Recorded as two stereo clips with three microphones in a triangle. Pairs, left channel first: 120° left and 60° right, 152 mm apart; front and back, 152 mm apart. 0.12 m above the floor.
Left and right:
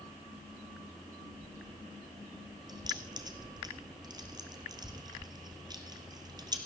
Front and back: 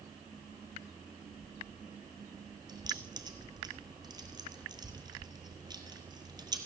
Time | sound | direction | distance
2.7 | keys jangling | 120° right | 2 m